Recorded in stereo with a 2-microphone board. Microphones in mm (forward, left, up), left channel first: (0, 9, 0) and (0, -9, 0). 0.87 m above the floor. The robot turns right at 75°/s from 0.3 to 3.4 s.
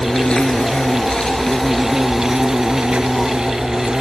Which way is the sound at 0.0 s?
65° left.